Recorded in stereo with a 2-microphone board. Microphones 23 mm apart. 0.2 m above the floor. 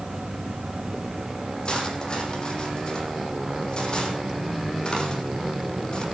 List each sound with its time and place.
1.6 s cutlery clinking: 40° left (ahead or behind), 6 m